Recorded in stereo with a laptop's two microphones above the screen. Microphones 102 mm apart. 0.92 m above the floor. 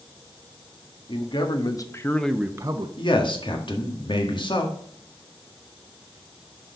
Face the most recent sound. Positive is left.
turn(degrees=50)  # may be behind; listen again after turning